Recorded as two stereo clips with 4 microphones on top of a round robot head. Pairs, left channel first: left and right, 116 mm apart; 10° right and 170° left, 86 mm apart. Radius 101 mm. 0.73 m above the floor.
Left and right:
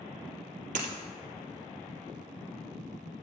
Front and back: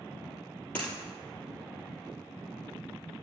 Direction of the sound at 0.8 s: 85° right.